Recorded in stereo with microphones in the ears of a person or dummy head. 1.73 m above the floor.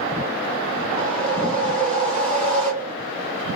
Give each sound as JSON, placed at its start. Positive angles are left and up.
{"t": 1.0, "sound": "a whoosh", "side_deg": -35, "distance_m": 1.8}